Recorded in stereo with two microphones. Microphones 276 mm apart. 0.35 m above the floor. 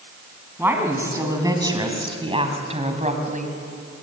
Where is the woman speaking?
10° right (ahead or behind), 3.5 m; by 3.6 s 30° right (ahead or behind), 3 m.